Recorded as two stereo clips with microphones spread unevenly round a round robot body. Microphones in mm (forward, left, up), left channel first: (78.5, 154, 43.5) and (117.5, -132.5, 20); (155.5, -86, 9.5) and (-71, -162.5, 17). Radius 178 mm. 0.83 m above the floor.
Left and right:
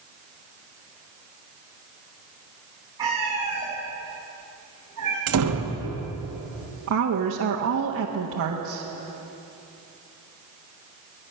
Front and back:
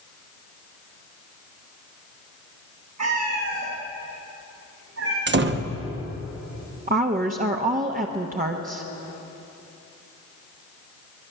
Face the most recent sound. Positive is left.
turn(degrees=-110)